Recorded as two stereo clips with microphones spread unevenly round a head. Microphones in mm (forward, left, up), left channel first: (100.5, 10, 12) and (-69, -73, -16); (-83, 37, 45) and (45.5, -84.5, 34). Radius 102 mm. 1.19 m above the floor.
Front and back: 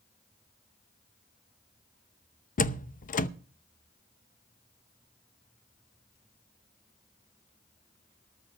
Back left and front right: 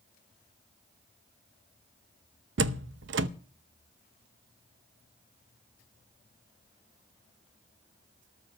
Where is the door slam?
15° right, 0.8 m.